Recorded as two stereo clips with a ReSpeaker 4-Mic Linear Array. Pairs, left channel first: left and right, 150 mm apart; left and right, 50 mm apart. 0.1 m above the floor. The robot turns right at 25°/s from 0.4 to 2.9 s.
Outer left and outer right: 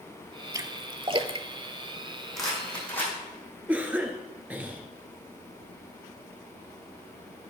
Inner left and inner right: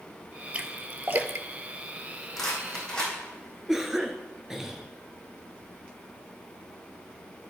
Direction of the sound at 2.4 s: Centre (ahead or behind).